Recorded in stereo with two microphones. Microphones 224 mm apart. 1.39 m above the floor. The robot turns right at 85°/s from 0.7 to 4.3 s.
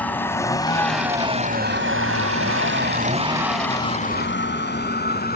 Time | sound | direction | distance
0.0 | a vehicle | 5° left (ahead or behind) | ?